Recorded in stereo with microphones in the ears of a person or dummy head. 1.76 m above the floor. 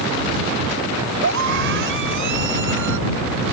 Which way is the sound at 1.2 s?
65° right (ahead or behind).